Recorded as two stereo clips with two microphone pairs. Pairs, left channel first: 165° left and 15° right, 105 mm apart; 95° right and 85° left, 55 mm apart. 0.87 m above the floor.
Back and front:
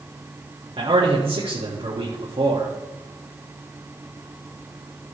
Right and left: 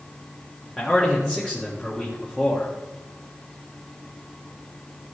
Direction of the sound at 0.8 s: 25° right.